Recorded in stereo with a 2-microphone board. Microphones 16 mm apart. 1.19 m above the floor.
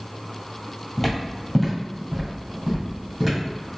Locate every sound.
1.0 s footsteps: centre (ahead or behind), 1.8 m; by 3.4 s 10° right (ahead or behind), 3 m